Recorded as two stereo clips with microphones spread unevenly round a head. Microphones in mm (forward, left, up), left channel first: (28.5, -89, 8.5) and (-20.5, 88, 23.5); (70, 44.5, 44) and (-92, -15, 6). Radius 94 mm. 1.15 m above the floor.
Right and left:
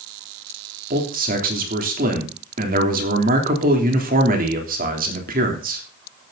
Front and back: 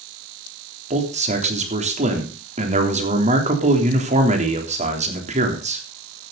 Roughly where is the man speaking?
Behind left.